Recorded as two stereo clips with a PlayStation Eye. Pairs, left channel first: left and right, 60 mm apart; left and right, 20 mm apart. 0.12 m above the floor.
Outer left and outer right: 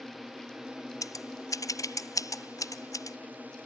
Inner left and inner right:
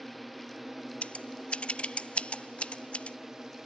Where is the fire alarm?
I don't hear a fire alarm.